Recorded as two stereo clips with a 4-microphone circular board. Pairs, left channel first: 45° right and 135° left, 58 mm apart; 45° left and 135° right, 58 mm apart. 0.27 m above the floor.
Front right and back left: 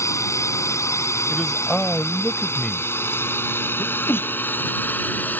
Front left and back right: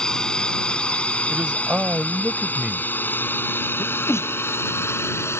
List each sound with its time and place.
0.0 s a drone: 30° right; by 5.4 s 10° left
1.3 s a man speaking: 115° right
3.8 s a sneeze: 5° left